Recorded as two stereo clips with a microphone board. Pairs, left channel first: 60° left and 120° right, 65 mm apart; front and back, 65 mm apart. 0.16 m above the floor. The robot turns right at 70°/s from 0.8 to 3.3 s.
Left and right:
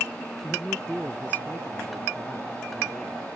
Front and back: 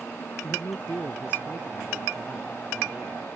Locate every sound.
0.4 s a man speaking: 15° right; by 3.3 s 155° left